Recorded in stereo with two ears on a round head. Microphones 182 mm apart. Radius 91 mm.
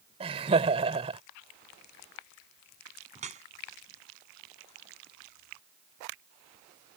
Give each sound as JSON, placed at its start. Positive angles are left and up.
{"t": 0.2, "sound": "laughter", "side_deg": -30}
{"t": 3.1, "sound": "dripping", "side_deg": -35}